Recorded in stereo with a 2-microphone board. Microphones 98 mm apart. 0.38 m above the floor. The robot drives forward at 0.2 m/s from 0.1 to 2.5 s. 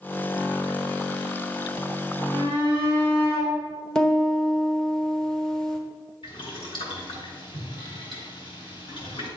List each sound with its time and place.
2.3 s a shout: 35° left (ahead or behind), 4.5 m; by 3.5 s 30° left (ahead or behind), 4.5 m
4.0 s a piano: 5° left (ahead or behind), 1.4 m
6.2 s boiling: 55° left (ahead or behind), 3.5 m